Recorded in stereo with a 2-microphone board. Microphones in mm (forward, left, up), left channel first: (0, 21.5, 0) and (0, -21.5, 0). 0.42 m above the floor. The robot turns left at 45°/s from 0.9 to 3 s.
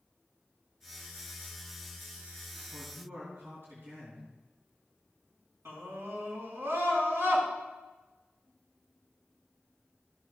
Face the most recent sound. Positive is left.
turn(degrees=-75)  # may be behind; listen again after turning